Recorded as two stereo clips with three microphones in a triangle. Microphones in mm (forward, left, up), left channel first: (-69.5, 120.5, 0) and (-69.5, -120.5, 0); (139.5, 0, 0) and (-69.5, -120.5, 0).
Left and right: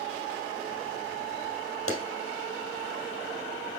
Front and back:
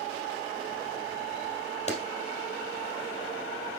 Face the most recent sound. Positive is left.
turn(degrees=90)